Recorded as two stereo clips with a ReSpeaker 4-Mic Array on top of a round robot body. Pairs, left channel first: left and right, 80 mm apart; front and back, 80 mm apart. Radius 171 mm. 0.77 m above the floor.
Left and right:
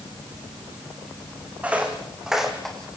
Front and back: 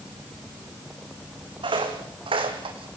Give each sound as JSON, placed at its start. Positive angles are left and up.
{"t": 1.6, "sound": "footsteps", "azimuth_deg": -165, "distance_m": 3.5}